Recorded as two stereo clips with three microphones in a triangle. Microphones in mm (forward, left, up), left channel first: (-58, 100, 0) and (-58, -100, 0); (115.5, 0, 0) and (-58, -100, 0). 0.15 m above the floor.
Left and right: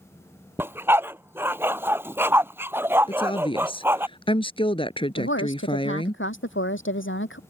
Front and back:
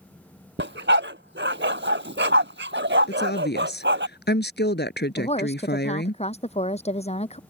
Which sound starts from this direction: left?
A woman speaking, at 5.2 s.